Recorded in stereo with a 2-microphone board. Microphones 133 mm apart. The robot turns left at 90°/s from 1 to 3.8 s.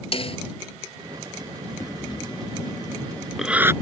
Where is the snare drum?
45° left (ahead or behind).